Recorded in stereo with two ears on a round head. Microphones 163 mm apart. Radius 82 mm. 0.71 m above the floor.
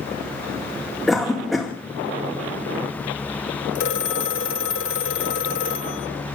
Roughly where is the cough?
Centre.